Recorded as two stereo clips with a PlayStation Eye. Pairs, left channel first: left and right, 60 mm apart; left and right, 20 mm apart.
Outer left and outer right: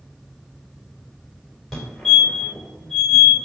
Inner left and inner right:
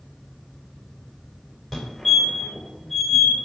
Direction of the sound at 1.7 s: Centre (ahead or behind).